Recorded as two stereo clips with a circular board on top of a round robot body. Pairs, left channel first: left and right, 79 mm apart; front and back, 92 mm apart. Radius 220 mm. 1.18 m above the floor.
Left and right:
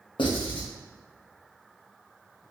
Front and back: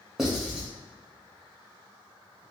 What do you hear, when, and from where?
0.2 s writing: 95° left, 0.6 m